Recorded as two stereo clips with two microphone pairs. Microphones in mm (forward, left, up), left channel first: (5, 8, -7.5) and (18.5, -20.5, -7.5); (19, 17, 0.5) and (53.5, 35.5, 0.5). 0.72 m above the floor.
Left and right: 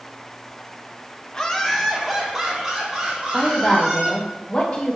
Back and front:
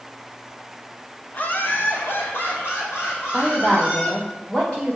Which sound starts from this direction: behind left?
A woman speaking, at 3.3 s.